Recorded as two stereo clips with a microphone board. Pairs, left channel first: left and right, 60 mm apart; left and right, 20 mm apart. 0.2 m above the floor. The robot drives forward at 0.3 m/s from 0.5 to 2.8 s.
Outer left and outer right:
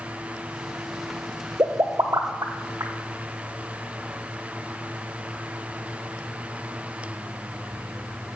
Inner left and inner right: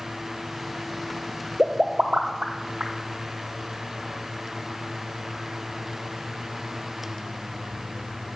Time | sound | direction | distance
1.6 | a pop | 60° right (ahead or behind) | 1.0 m